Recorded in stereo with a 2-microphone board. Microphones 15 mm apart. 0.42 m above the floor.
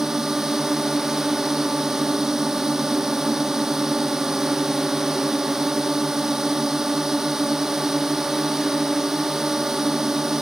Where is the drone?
25° right (ahead or behind).